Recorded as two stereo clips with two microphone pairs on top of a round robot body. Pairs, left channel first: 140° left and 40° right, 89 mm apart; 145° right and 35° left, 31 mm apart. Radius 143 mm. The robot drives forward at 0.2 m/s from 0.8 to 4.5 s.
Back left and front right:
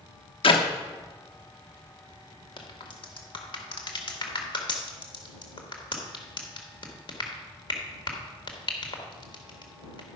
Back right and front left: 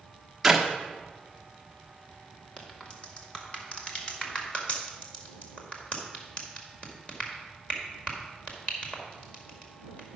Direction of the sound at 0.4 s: 120° left.